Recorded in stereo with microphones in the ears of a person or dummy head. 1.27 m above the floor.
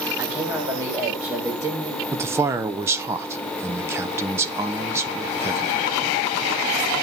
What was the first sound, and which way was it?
A man speaking, 15° right (ahead or behind).